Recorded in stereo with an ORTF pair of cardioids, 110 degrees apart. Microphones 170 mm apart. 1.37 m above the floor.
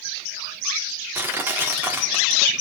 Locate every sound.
1.1 s crushing: 10° right, 4 m